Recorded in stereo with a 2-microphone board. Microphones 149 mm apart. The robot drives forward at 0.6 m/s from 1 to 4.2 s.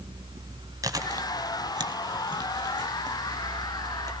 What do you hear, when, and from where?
0.8 s chewing: 25° right (ahead or behind), 1.6 m